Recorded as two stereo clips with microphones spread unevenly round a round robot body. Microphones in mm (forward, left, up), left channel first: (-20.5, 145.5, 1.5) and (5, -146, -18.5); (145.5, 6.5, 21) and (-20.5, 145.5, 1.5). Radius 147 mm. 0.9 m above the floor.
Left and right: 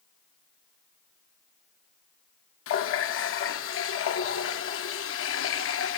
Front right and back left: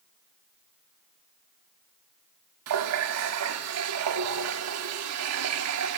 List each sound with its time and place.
2.7 s a running tap: 145° left, 1.0 m